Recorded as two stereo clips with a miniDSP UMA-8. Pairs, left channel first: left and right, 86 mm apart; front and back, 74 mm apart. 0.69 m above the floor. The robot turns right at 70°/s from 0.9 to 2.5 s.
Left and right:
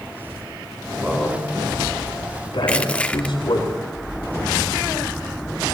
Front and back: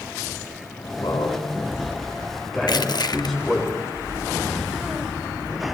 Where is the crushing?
15° left, 0.8 m.